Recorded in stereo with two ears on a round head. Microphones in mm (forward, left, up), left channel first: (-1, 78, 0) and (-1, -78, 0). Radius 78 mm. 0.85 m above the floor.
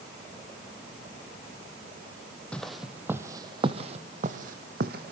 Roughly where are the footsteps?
Centre.